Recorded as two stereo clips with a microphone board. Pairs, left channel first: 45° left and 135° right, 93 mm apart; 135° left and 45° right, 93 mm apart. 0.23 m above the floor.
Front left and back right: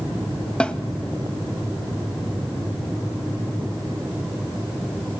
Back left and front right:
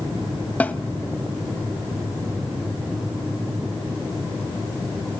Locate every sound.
0.6 s a snare drum: 100° left, 1.1 m